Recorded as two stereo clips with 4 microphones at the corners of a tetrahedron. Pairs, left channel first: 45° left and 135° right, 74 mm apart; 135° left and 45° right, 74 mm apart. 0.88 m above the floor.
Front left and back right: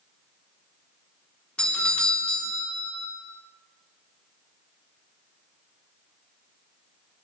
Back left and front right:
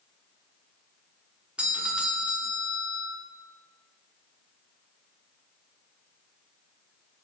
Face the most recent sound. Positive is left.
turn(degrees=-5)